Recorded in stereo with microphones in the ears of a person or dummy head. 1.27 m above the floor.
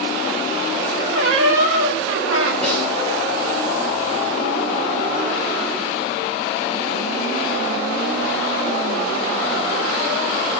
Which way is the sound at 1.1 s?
85° right.